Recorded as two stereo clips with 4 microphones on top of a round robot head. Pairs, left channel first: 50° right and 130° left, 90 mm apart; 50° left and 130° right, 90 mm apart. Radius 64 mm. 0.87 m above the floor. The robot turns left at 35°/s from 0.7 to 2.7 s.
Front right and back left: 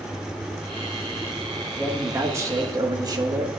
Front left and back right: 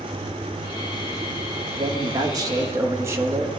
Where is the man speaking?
155° right, 1.2 m; by 3.5 s 175° left, 1.2 m.